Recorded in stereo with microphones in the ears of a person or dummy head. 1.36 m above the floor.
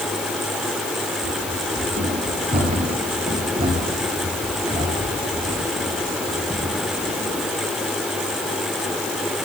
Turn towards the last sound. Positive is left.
turn(degrees=-15)  # may be behind; listen again after turning